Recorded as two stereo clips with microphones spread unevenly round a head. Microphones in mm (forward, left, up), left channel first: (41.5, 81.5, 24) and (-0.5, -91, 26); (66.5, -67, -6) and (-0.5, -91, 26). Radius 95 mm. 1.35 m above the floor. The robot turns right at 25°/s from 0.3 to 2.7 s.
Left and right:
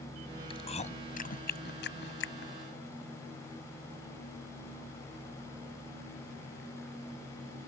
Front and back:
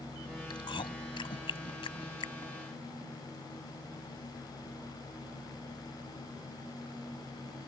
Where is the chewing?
15° left; by 2.5 s 65° left.